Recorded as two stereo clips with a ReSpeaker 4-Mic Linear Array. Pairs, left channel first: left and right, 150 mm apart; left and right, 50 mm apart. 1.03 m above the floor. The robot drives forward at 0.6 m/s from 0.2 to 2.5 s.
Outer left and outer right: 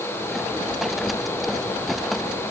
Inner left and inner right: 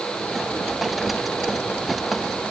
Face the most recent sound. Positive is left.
No sound to turn to.